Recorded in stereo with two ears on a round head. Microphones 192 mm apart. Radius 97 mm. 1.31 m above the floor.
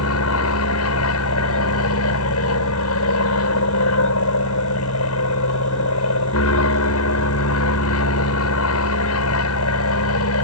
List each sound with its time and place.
0.0 s an aircraft: 75° left (ahead or behind)